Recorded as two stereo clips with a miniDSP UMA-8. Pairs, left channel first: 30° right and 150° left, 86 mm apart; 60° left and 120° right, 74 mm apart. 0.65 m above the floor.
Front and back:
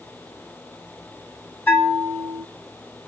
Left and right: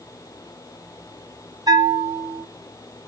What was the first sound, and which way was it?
A bell, 100° right.